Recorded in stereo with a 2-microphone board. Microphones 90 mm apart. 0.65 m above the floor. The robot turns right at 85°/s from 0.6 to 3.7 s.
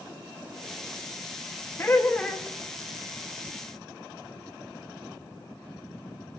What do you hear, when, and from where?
1.8 s laughter: 25° left (ahead or behind), 0.7 m; by 2.5 s 5° left (ahead or behind), 0.7 m